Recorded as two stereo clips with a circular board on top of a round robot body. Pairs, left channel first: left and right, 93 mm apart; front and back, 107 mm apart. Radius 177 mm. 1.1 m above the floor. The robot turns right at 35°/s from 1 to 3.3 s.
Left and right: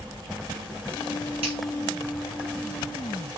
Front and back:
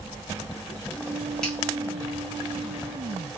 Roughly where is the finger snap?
Right.